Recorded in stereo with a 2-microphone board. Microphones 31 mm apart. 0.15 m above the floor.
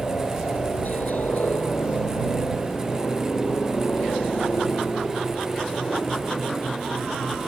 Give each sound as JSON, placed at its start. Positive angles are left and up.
{"t": 0.0, "sound": "a helicopter", "side_deg": 65}